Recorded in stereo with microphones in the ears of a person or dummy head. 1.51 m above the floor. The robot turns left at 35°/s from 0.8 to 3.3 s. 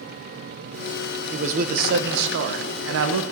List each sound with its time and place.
1.3 s a man speaking: 40° right, 0.9 m; by 3.3 s 110° right, 0.9 m